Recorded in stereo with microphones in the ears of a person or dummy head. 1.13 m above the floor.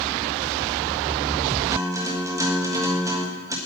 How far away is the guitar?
About 1.5 m.